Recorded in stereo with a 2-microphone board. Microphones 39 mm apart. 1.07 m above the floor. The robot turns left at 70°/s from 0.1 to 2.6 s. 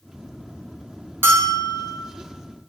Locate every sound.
1.2 s a bell: 95° right, 0.5 m; by 2.0 s 145° right, 0.5 m